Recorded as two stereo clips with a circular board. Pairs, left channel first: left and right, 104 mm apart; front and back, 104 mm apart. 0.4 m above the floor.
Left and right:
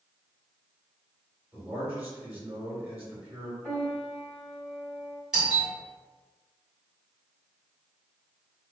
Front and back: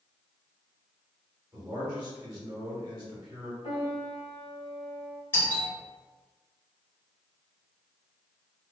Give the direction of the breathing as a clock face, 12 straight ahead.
I don't hear breathing.